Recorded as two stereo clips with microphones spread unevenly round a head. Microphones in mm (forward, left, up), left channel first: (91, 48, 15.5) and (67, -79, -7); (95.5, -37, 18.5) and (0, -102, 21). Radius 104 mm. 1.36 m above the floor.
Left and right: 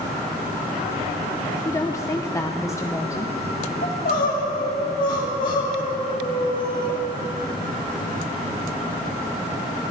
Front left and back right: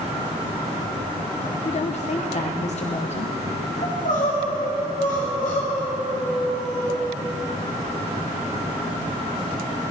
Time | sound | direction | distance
1.6 | a woman speaking | 10° left | 1.0 m
3.8 | crying | 85° left | 2.5 m